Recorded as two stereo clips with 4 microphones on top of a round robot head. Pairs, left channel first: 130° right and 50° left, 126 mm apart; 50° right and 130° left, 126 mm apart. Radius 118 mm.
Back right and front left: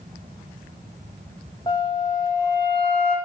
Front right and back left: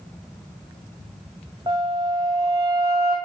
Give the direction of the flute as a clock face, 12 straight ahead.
6 o'clock.